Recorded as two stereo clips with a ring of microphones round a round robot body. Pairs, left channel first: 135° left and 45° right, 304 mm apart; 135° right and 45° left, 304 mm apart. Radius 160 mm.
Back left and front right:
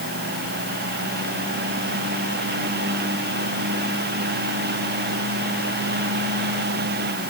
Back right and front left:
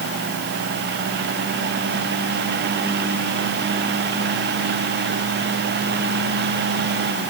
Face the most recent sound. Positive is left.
No sound to turn to.